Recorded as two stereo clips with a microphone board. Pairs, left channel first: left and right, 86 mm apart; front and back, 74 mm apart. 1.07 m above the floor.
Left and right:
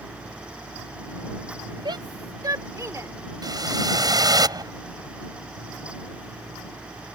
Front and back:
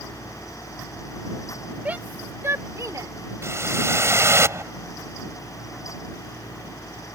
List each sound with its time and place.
1.9 s a shout: 115° right; by 3.1 s 150° right
3.4 s a whoosh: 130° right